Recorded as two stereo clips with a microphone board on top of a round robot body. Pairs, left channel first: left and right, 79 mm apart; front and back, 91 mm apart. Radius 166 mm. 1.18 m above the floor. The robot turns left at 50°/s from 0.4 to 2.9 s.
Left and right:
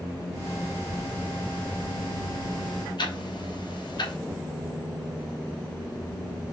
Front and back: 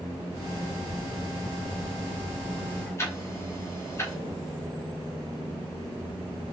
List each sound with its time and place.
3.0 s ticking: 65° left, 3 m